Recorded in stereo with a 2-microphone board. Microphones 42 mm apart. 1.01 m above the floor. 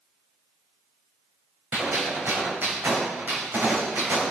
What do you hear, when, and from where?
1.7 s a gunshot: 65° right (ahead or behind), 5.5 m